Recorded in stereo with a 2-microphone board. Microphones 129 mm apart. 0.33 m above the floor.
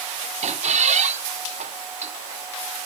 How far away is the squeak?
About 1.4 m.